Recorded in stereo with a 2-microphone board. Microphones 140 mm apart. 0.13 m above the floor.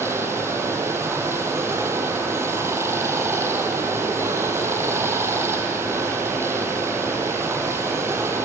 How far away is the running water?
About 2.5 m.